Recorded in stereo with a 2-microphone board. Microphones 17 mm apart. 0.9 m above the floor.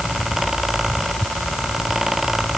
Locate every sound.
Only background noise.